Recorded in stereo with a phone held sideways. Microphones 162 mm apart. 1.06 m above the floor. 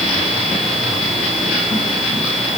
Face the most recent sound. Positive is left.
No sound to turn to.